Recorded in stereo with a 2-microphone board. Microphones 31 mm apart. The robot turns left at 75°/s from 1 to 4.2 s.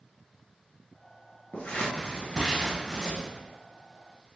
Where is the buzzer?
I don't hear a buzzer.